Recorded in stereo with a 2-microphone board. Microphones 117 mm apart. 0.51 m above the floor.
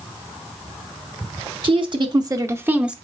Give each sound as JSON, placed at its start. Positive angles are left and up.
{"t": 1.6, "sound": "a woman speaking", "side_deg": -45, "distance_m": 1.1}